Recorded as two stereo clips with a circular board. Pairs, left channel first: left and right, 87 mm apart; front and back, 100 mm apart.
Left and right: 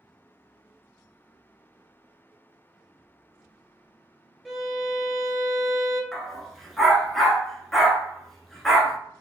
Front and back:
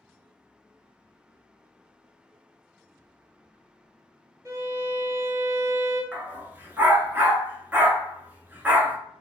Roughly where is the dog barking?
Behind.